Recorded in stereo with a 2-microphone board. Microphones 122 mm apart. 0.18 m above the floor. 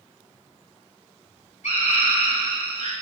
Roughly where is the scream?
Left.